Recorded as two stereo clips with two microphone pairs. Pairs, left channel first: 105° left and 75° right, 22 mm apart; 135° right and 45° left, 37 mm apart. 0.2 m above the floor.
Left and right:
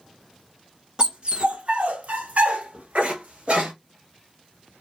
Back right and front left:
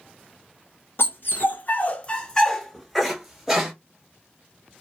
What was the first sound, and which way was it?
A dog barking, 130° right.